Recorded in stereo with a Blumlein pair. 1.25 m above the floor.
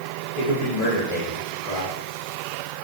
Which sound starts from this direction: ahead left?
A man speaking, at 0.4 s.